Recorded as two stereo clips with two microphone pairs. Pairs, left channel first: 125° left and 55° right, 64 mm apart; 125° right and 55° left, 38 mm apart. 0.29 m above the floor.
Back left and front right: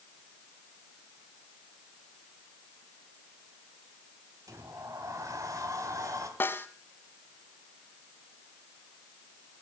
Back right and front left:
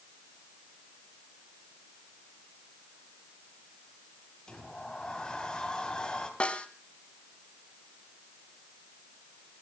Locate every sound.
4.5 s a sliding door: 65° right, 2.5 m
6.4 s a snare drum: straight behind, 1.4 m